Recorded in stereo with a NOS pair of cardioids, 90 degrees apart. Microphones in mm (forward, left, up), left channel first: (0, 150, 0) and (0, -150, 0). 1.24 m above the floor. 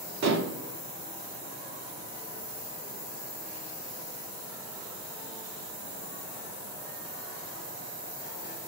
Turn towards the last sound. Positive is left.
turn(degrees=-60)